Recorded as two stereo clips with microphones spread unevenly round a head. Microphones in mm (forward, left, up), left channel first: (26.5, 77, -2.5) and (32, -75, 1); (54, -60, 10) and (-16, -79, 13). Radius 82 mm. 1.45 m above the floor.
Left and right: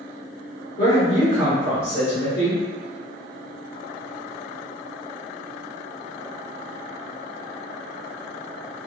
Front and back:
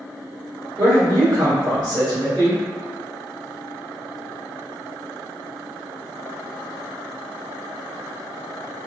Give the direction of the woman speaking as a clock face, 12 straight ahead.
8 o'clock.